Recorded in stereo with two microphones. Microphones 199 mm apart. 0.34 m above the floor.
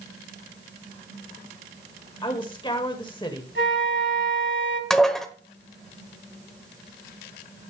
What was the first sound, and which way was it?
A woman speaking, 25° left (ahead or behind).